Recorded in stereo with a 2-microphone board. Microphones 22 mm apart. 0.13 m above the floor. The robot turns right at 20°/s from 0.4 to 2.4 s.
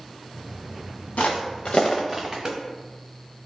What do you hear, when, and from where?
1.2 s footsteps: 80° left, 0.8 m; by 2.5 s 35° right (ahead or behind), 0.9 m